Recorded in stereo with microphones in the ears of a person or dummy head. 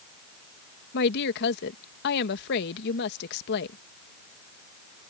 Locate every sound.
0.9 s a woman speaking: 60° left (ahead or behind)